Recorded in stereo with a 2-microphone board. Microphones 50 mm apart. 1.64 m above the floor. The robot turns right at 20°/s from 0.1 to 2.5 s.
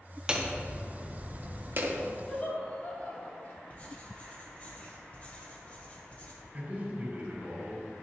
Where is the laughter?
30° left (ahead or behind), 3.5 m; by 3.6 s 35° left (ahead or behind), 3.5 m.